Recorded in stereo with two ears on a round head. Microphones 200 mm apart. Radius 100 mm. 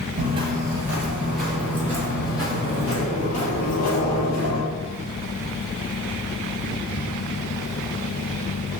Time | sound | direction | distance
0.2 | footsteps | 25° right (ahead or behind) | 1.4 m